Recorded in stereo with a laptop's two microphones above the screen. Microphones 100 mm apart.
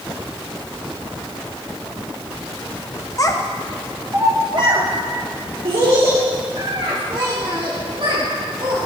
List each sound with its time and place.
3.2 s a child speaking: 35° left (ahead or behind), 0.7 m; by 8.8 s 75° right (ahead or behind), 3 m